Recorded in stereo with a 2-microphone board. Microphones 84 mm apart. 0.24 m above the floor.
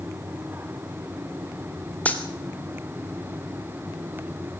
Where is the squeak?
I don't hear a squeak.